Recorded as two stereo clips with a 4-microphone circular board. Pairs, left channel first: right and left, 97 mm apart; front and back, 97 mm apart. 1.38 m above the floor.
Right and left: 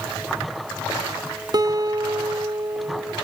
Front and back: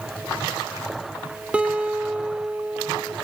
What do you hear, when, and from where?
1.5 s a guitar: 110° left, 0.7 m